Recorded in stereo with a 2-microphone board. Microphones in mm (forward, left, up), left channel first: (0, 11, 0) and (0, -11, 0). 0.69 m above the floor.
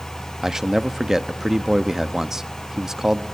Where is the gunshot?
I don't hear a gunshot.